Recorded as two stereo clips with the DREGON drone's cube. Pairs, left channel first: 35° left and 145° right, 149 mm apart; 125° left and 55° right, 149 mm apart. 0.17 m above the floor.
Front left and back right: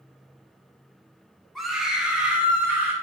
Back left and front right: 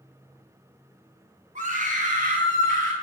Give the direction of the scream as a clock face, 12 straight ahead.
2 o'clock.